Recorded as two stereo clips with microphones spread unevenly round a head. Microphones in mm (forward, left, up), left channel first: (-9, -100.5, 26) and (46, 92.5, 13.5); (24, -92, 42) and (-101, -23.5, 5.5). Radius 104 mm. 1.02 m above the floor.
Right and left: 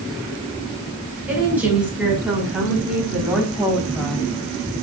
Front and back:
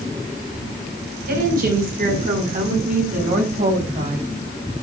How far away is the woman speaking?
About 5.5 m.